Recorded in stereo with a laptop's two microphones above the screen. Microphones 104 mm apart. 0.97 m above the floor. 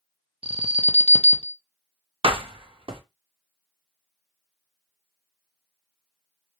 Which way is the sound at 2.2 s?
55° right (ahead or behind).